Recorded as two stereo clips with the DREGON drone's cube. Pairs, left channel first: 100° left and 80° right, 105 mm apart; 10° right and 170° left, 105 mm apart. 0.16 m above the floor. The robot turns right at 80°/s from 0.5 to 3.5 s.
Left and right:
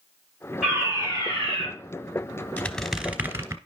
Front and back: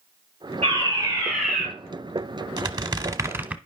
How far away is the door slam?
I don't hear a door slam.